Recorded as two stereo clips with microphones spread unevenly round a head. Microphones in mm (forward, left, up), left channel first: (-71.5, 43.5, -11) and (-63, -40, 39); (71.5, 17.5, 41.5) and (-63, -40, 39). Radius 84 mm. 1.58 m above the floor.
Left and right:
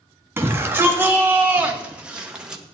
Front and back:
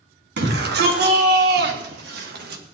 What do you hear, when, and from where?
0.4 s a shout: 150° right, 3.5 m; by 2.6 s 165° right, 2.5 m